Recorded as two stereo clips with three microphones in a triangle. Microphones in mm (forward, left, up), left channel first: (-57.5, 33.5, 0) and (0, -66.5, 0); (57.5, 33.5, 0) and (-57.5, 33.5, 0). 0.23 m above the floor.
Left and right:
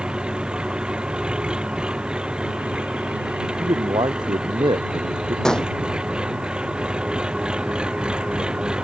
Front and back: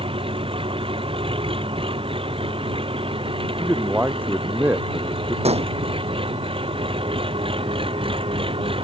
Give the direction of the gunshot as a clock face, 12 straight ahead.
5 o'clock.